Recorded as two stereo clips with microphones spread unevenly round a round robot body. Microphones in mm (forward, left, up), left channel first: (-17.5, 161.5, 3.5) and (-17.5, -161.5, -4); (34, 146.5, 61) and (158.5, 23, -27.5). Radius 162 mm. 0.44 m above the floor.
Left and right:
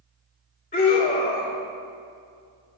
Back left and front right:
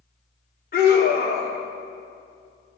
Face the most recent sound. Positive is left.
turn(degrees=105)